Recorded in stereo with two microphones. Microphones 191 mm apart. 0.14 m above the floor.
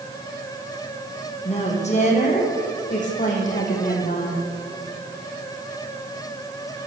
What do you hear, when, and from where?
1.4 s a woman speaking: 35° left (ahead or behind), 6.5 m; by 4.5 s 45° left (ahead or behind), 7.5 m